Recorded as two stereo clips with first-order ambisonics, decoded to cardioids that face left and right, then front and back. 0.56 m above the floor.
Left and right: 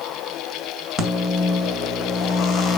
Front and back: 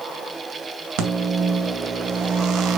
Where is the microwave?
155° left, 2 m.